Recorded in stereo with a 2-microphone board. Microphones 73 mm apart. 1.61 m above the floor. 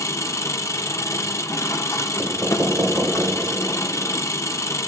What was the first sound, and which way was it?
An engine running, 45° left (ahead or behind).